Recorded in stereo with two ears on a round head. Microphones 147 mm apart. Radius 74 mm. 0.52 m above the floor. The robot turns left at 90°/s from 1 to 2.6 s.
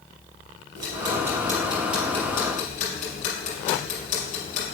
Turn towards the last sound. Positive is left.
turn(degrees=50)  # may be behind; listen again after turning